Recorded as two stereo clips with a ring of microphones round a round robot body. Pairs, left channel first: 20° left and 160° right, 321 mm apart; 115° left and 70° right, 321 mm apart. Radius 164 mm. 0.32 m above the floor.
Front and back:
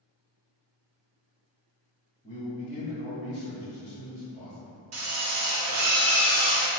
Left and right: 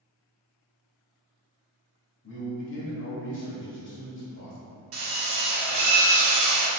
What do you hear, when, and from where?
2.2 s a man speaking: 80° left, 1.2 m
4.9 s a drill: 115° right, 1.1 m